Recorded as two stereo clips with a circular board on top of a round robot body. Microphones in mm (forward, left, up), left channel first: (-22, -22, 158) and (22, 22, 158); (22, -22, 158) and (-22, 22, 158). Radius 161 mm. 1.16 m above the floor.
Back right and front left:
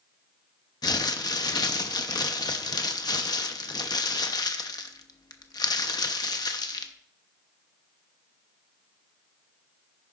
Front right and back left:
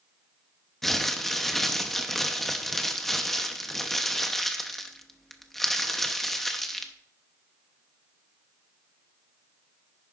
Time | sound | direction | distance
0.8 | crumpling | 130° right | 1.0 m